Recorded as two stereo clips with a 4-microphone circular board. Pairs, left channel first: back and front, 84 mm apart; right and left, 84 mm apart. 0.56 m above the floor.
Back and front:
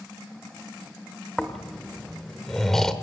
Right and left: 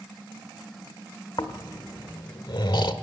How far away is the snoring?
About 1.3 m.